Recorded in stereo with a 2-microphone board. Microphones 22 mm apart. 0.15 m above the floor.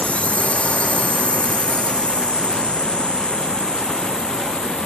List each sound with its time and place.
0.0 s a drone: 65° left (ahead or behind); by 4.9 s 40° left (ahead or behind)